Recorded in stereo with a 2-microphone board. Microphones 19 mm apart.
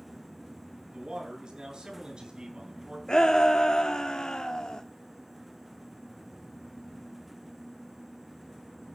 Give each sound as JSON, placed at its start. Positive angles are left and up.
{"t": 0.9, "sound": "a man speaking", "side_deg": -50, "distance_m": 9.0}
{"t": 3.1, "sound": "a shout", "side_deg": 50, "distance_m": 1.4}